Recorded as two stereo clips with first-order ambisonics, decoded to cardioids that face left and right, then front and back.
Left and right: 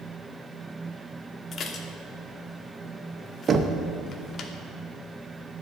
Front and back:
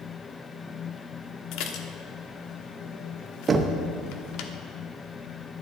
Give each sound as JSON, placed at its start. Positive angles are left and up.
{"t": 1.5, "sound": "dishes clattering", "azimuth_deg": 30, "distance_m": 1.0}
{"t": 3.5, "sound": "knocking", "azimuth_deg": -130, "distance_m": 0.6}